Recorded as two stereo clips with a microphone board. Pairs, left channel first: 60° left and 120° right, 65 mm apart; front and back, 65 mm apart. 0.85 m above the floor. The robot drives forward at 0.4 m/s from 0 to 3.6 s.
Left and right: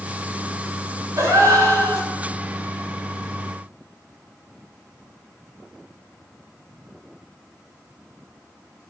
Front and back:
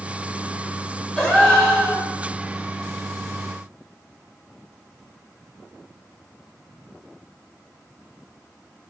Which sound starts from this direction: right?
A gasp, at 1.2 s.